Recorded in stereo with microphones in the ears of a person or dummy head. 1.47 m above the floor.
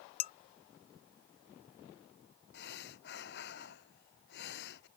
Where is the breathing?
65° left (ahead or behind).